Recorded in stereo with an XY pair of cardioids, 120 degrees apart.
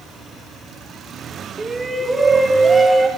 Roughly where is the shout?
Ahead right.